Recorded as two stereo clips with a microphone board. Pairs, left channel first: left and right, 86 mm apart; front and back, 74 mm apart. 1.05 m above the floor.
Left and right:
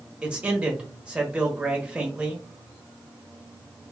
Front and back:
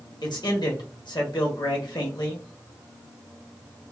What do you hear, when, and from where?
0.2 s a man speaking: 15° right, 1.2 m